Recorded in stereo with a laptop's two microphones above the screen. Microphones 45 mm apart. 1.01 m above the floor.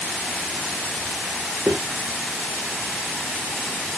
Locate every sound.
1.7 s footsteps: 75° right (ahead or behind), 5 m